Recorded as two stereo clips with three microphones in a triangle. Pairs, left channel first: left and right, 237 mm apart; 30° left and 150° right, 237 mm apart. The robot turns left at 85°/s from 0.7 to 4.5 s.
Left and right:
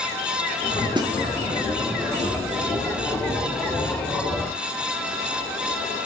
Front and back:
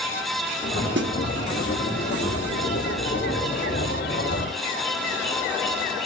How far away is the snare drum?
About 1.0 m.